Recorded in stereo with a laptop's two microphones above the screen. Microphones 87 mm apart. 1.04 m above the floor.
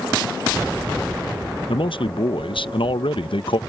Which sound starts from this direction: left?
A man speaking, at 1.7 s.